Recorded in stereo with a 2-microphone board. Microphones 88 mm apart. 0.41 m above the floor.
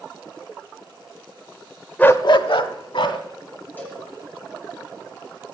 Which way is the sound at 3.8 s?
20° left (ahead or behind).